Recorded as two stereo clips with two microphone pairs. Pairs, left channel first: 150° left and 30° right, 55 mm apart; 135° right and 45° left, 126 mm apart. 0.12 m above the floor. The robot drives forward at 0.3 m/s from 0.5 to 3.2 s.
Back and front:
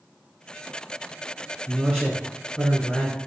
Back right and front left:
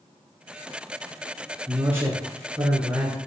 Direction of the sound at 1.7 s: 85° left.